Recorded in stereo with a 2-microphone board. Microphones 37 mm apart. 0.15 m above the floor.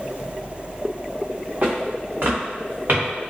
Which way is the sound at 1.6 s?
55° right (ahead or behind).